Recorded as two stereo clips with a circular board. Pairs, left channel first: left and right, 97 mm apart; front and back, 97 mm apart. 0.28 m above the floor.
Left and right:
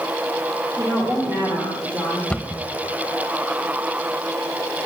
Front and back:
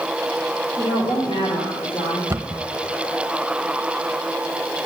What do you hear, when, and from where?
0.8 s a woman speaking: 40° right, 8 m; by 2.2 s 20° right, 8.5 m
2.3 s a cupboard door: 160° left, 0.8 m